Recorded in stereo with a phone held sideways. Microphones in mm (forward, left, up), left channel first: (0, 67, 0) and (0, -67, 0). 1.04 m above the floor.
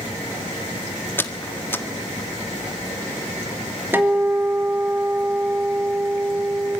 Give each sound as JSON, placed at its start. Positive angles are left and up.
{"t": 1.2, "sound": "a squeak", "side_deg": 15, "distance_m": 1.5}
{"t": 3.9, "sound": "a guitar", "side_deg": -15, "distance_m": 3.5}